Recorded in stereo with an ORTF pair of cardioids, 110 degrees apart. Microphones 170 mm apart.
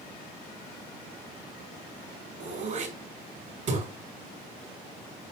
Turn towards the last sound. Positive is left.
turn(degrees=-40)